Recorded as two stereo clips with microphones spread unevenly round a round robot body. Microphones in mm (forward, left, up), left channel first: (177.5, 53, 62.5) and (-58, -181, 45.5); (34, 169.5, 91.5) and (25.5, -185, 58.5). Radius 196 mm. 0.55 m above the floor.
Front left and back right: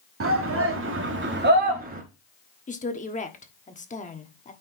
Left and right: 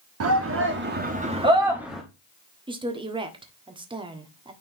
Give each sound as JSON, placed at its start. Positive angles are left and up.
{"t": 0.2, "sound": "a shout", "azimuth_deg": -105, "distance_m": 1.4}
{"t": 2.7, "sound": "a woman speaking", "azimuth_deg": -20, "distance_m": 1.4}